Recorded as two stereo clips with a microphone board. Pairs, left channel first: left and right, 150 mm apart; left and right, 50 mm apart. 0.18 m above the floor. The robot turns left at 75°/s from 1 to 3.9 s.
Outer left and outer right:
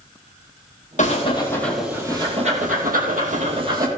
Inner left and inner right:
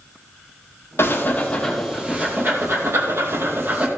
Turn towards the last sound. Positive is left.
turn(degrees=-160)